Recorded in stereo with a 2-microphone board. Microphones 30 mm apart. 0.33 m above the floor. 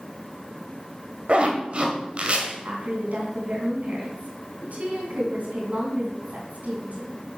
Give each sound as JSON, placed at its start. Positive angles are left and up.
{"t": 1.3, "sound": "a zipper", "side_deg": -40, "distance_m": 1.8}
{"t": 2.6, "sound": "a woman speaking", "side_deg": -60, "distance_m": 3.5}